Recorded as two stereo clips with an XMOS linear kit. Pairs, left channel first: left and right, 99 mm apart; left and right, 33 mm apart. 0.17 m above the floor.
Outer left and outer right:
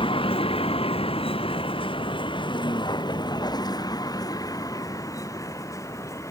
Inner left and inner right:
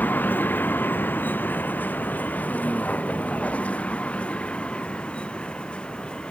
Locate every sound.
0.0 s a vehicle: 70° left (ahead or behind); by 6.3 s 35° left (ahead or behind)